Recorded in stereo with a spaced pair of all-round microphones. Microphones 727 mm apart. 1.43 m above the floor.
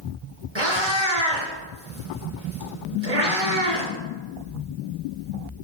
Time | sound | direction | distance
0.6 | a cat meowing | 35° right (ahead or behind) | 2.5 m